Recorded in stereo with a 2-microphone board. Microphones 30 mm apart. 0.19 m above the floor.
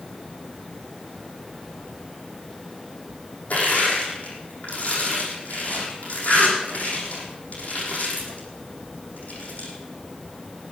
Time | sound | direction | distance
3.5 | crushing | 60° left (ahead or behind) | 6 m